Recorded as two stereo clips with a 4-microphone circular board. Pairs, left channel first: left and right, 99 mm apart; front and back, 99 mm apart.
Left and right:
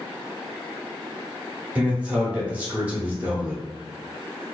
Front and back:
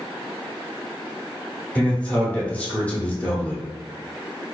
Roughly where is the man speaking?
Ahead right.